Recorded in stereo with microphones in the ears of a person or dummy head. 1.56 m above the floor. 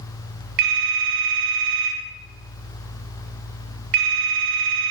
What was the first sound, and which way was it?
A phone ringing, 55° right (ahead or behind).